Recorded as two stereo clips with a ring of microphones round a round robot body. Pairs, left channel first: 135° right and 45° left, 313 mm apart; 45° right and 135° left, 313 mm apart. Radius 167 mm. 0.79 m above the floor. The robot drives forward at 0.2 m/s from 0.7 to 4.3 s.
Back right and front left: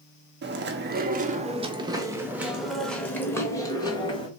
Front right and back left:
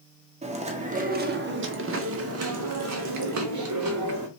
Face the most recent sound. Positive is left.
turn(degrees=155)